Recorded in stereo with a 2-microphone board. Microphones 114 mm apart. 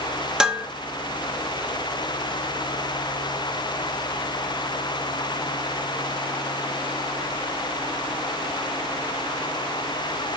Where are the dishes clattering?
5° right (ahead or behind), 1.0 m.